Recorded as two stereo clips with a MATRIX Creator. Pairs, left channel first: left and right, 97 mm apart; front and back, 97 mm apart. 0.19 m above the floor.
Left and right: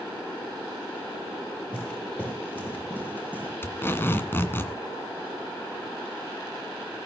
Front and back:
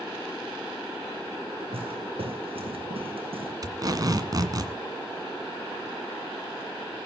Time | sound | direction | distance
1.7 | footsteps | 165° left | 6 m
3.6 | tape being pulled | 150° left | 2.0 m